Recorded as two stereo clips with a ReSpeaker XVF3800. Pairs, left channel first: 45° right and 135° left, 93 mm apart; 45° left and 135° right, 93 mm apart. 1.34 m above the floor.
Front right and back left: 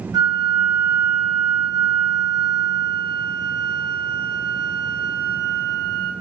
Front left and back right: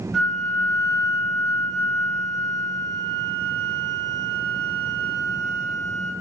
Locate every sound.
0.1 s a flute: 130° left, 1.3 m